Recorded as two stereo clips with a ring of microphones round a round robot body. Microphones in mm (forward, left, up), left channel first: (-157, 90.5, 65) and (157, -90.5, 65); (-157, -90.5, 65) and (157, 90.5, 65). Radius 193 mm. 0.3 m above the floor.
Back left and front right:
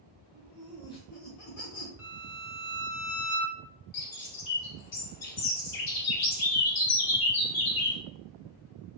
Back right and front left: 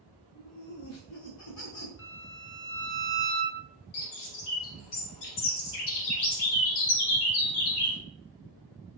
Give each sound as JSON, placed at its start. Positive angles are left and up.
{"t": 0.3, "sound": "laughter", "azimuth_deg": -80, "distance_m": 1.2}
{"t": 2.0, "sound": "a violin", "azimuth_deg": -115, "distance_m": 1.1}
{"t": 3.9, "sound": "a bird", "azimuth_deg": -170, "distance_m": 1.0}